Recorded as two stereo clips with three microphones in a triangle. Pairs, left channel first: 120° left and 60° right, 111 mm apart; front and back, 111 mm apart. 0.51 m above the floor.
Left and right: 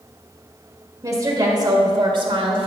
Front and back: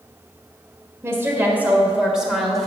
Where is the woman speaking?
115° right, 1.9 m; by 2.7 s 85° right, 1.7 m.